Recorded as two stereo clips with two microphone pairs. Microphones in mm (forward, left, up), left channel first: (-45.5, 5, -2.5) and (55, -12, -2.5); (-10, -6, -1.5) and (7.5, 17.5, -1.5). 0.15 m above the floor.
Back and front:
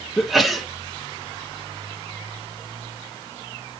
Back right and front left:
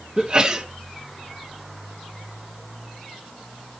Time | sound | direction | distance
0.2 | a sneeze | 75° left | 1.5 m